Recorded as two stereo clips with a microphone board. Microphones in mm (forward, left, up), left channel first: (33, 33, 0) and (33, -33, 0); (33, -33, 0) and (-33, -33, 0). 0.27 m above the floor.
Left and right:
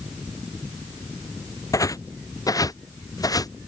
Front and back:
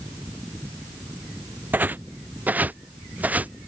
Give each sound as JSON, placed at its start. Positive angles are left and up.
{"t": 1.7, "sound": "footsteps", "azimuth_deg": 120}